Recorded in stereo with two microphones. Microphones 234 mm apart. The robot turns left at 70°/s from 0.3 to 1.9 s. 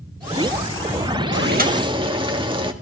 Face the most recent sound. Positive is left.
turn(degrees=-155)